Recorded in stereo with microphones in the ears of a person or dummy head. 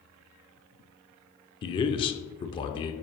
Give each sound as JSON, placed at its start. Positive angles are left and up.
{"t": 1.6, "sound": "a man speaking", "side_deg": 25, "distance_m": 0.7}